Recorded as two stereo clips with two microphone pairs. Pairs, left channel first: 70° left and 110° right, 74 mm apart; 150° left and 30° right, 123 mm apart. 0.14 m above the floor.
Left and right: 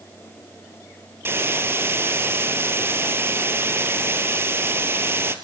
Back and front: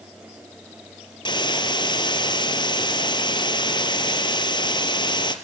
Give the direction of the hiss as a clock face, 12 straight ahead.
5 o'clock.